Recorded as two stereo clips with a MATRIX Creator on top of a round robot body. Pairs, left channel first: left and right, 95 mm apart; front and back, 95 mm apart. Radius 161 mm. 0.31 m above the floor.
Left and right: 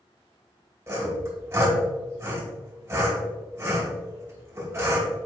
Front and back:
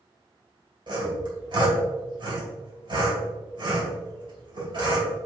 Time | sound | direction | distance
0.9 | sawing | 150° right | 3 m